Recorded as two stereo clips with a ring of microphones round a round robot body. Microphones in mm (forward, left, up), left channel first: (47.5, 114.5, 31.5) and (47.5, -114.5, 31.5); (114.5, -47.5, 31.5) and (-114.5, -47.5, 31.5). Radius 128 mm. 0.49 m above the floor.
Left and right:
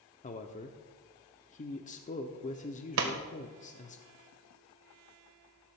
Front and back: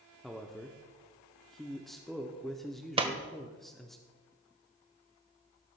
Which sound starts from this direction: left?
A man speaking, at 0.2 s.